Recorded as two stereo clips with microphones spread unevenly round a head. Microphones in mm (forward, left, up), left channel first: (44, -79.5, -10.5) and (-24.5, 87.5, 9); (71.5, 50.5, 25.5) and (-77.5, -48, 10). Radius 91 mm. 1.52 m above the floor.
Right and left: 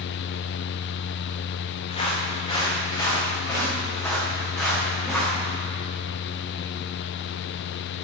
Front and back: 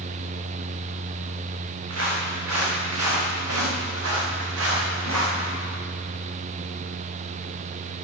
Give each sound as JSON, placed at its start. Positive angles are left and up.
{"t": 1.9, "sound": "footsteps", "azimuth_deg": -130, "distance_m": 6.0}